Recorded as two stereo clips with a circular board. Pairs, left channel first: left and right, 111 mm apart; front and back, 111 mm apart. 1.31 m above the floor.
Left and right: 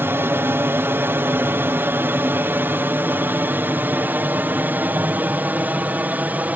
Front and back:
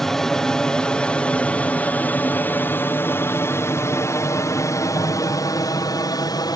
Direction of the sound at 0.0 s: 80° right.